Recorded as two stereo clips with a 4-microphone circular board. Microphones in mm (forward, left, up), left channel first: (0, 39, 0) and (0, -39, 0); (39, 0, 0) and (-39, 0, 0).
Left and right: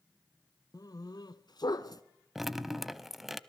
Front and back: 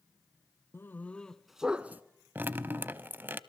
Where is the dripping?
175° right, 0.7 m.